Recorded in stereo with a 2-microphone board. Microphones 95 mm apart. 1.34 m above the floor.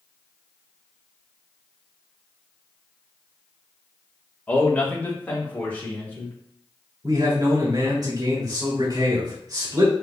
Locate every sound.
4.5 s a man speaking: 15° left (ahead or behind), 1.3 m; by 6.3 s 20° left (ahead or behind), 2.5 m
7.0 s a man speaking: 45° right (ahead or behind), 2.5 m